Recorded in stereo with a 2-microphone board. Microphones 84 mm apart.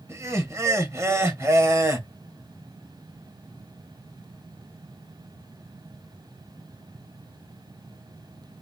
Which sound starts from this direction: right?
Laughter, at 0.1 s.